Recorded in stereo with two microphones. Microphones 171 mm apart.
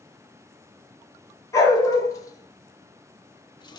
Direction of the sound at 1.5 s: 20° left (ahead or behind).